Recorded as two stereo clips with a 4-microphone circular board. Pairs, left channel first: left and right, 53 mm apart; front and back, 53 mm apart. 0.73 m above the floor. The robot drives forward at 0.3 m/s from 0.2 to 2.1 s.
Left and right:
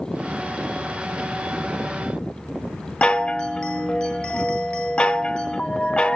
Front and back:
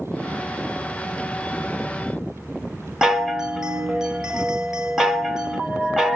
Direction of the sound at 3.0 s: 120° left.